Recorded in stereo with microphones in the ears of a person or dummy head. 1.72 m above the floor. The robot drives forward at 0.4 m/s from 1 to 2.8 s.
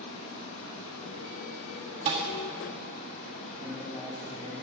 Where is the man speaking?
25° left (ahead or behind), 5.5 m.